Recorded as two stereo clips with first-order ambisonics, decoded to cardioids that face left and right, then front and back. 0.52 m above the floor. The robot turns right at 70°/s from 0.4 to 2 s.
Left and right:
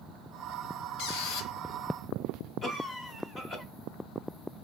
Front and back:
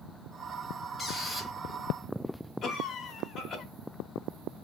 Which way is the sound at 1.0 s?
70° left.